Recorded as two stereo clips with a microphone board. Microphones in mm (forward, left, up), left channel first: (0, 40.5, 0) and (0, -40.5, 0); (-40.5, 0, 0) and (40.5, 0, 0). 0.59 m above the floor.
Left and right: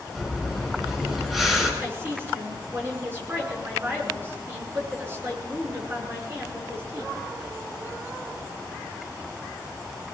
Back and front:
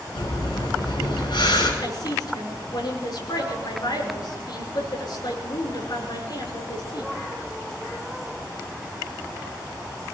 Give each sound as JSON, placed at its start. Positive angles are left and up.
{"t": 0.1, "sound": "breathing", "azimuth_deg": -175, "distance_m": 6.5}
{"t": 1.8, "sound": "a woman speaking", "azimuth_deg": -150, "distance_m": 8.0}